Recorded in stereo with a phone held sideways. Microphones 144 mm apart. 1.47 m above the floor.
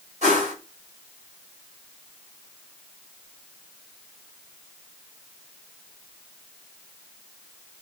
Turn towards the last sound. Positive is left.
turn(degrees=-55)  # may be behind; listen again after turning